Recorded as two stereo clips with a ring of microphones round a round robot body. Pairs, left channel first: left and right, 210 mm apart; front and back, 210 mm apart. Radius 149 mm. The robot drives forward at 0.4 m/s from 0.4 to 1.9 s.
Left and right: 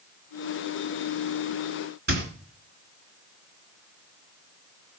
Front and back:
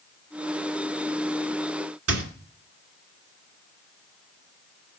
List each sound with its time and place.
2.1 s a squeak: 150° right, 2.5 m